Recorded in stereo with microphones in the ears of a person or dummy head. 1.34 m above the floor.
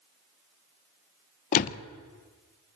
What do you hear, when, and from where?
1.5 s a door slam: 45° left (ahead or behind), 0.8 m